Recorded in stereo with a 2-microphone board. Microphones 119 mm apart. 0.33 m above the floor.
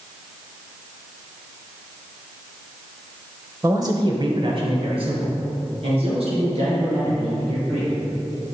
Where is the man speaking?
25° right (ahead or behind), 0.9 m; by 7.9 s 60° right (ahead or behind), 6.5 m.